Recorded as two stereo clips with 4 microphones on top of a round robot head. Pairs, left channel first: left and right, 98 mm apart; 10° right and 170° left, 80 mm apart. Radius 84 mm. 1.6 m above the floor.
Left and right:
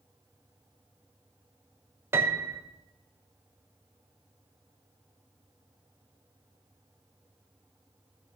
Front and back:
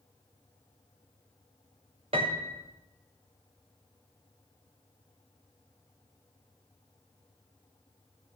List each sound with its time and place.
2.1 s a piano: 150° right, 0.9 m